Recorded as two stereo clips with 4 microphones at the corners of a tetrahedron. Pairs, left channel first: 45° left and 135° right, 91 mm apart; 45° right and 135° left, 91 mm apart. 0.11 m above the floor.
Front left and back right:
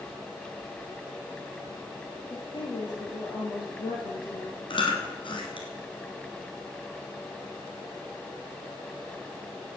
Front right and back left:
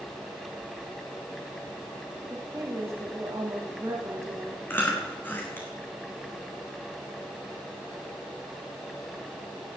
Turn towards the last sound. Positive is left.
turn(degrees=20)